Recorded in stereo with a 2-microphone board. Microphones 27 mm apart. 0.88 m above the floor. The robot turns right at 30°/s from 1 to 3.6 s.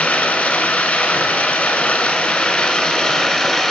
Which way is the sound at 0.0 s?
95° left.